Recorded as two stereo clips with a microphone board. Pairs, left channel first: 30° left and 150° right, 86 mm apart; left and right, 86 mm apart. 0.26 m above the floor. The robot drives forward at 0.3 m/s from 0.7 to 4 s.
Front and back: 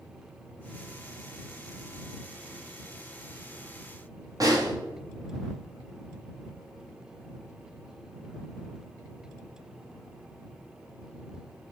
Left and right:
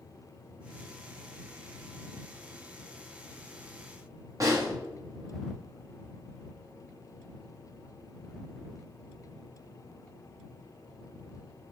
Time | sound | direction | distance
4.4 | a snare drum | 120° right | 1.4 m